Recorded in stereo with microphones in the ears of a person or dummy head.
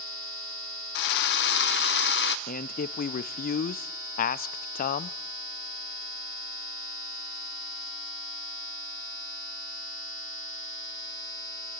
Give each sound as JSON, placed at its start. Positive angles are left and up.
{"t": 0.9, "sound": "a drill", "side_deg": 55, "distance_m": 0.6}
{"t": 2.5, "sound": "a man speaking", "side_deg": 45, "distance_m": 0.6}